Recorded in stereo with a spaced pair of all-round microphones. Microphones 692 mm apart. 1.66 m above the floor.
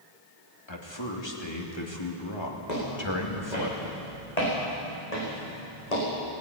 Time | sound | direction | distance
0.7 | a man speaking | 40° left (ahead or behind) | 3 m
2.7 | footsteps | 75° left (ahead or behind) | 8 m